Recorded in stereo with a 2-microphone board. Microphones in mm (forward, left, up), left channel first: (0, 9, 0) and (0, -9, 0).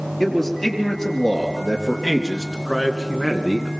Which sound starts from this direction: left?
A man speaking, at 0.2 s.